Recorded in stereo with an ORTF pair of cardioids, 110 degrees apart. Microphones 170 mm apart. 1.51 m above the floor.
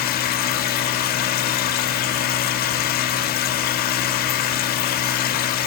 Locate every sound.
0.0 s a machine running: 65° left, 0.7 m